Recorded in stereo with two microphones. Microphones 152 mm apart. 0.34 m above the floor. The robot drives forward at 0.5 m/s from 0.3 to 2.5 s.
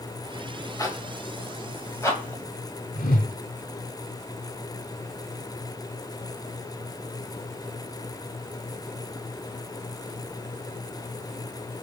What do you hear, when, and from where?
0.8 s a zipper: 20° left (ahead or behind), 2.0 m; by 2.4 s 15° left (ahead or behind), 2.5 m
3.0 s a whoosh: 60° left (ahead or behind), 0.8 m